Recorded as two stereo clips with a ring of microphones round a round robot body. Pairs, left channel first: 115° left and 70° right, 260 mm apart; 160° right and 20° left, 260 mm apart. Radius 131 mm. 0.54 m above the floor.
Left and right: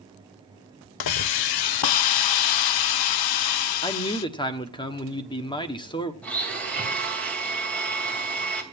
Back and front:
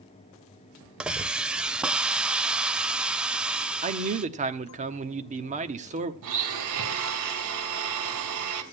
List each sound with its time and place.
1.0 s a hiss: 110° left, 0.6 m
3.8 s a man speaking: 55° left, 1.2 m
6.2 s a blender: 25° left, 2.5 m